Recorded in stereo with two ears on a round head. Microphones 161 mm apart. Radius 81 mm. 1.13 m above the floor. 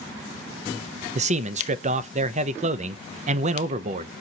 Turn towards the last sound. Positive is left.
turn(degrees=-35)  # may be behind; listen again after turning